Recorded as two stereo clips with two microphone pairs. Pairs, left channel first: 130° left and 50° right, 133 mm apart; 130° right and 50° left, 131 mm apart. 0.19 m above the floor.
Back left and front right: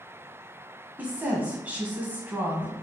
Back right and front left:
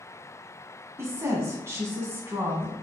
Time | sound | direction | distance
1.0 | a woman speaking | 10° left | 1.0 m